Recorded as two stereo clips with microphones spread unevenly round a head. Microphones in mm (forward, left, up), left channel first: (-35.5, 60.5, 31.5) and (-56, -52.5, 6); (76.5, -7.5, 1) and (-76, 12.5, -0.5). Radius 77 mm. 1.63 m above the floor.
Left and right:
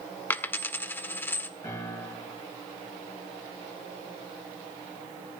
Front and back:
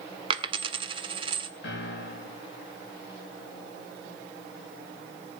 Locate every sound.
0.3 s a dropped coin: 130° left, 1.6 m
1.6 s a piano: 10° left, 6 m